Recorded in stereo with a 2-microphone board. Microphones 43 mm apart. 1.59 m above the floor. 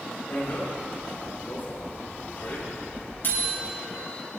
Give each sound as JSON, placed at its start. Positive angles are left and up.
{"t": 0.3, "sound": "a bicycle bell", "side_deg": 45, "distance_m": 5.5}